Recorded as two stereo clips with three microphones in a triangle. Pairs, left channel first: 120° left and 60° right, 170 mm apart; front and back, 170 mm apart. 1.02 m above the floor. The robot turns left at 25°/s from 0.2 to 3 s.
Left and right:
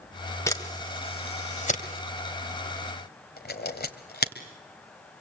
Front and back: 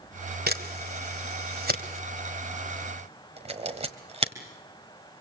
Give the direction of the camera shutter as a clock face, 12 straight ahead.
6 o'clock.